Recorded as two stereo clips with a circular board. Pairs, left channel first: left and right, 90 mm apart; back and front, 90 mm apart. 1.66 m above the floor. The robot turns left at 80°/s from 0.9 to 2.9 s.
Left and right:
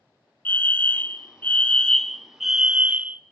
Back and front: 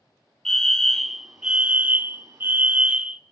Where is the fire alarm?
110° left, 0.6 m; by 3.2 s 50° right, 0.6 m.